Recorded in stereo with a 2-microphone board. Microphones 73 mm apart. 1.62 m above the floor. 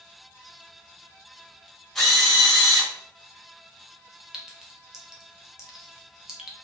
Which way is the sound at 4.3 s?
10° right (ahead or behind).